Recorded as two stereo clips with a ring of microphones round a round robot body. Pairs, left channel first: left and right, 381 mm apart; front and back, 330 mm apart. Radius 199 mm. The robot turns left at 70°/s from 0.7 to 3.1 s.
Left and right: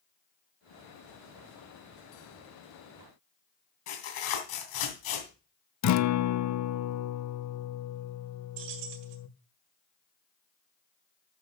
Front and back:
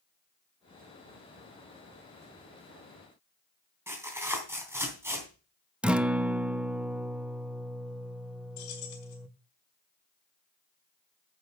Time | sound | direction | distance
3.9 | tearing paper | 95° left | 3 m
5.8 | a guitar | 95° left | 0.7 m
8.6 | keys jangling | 50° right | 2 m